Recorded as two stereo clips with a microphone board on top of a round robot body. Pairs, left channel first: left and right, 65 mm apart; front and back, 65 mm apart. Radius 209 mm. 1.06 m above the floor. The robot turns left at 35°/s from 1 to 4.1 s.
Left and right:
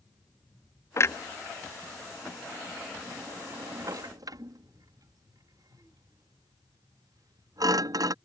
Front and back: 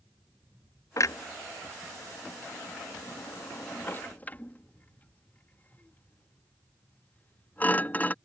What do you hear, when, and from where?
1.0 s a clunk: 45° left; by 8.2 s 65° right